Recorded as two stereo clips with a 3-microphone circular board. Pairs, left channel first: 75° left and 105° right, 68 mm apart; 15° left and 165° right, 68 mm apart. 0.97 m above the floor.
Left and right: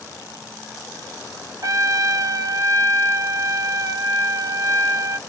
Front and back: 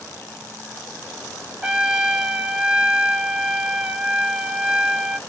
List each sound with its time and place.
1.6 s a trumpet: 90° right, 0.8 m